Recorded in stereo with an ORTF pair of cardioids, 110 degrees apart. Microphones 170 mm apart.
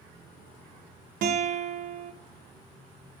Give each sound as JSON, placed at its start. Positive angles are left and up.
{"t": 1.2, "sound": "a guitar", "azimuth_deg": -65, "distance_m": 0.8}